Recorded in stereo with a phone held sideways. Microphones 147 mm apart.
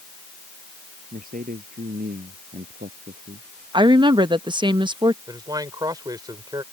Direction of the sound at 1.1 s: 75° right (ahead or behind).